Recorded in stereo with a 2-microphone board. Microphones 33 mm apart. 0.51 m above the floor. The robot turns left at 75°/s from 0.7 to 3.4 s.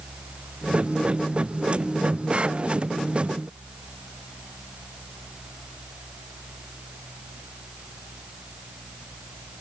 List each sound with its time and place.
Only background noise.